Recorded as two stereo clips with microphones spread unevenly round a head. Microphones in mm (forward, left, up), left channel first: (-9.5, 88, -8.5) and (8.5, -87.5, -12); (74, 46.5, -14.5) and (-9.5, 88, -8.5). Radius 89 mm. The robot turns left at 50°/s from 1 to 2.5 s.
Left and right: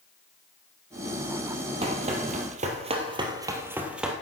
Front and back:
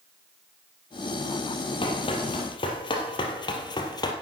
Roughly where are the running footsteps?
Ahead right.